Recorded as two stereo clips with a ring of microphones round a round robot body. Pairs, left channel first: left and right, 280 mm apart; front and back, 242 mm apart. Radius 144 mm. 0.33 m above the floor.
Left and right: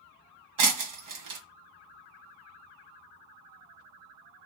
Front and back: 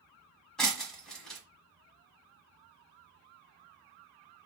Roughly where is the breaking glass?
Right.